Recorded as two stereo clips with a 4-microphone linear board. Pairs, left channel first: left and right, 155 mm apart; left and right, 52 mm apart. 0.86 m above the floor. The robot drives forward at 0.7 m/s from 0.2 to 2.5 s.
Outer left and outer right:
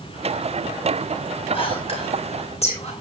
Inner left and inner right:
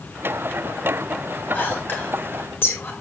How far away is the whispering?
About 3.5 m.